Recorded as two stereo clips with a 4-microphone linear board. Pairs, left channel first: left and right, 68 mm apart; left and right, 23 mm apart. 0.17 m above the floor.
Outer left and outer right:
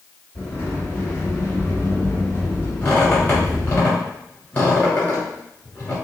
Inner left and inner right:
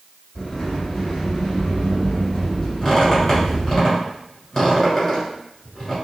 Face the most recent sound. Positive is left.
turn(degrees=25)  # may be behind; listen again after turning